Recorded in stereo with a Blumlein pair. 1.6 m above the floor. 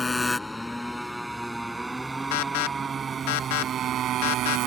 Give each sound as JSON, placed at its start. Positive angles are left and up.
{"t": 0.0, "sound": "a motorcycle", "azimuth_deg": 10}
{"t": 2.3, "sound": "an alarm", "azimuth_deg": 50}